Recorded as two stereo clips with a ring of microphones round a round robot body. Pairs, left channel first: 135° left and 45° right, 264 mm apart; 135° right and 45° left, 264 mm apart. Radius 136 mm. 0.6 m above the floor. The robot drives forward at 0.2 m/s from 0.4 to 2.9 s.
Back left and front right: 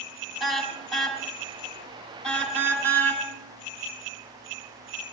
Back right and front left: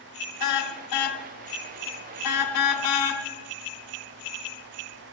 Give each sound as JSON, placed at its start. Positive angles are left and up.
{"t": 0.4, "sound": "a car horn", "azimuth_deg": -135, "distance_m": 3.0}